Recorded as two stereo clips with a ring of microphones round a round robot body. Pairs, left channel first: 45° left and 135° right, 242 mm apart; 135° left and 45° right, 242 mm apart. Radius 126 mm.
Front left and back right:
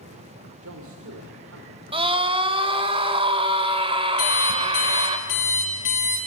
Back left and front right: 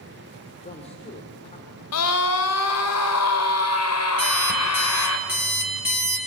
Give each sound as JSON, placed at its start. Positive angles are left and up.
{"t": 0.6, "sound": "a man speaking", "azimuth_deg": -160, "distance_m": 2.5}
{"t": 1.9, "sound": "a scream", "azimuth_deg": 155, "distance_m": 2.0}
{"t": 4.2, "sound": "an alarm clock", "azimuth_deg": 35, "distance_m": 6.0}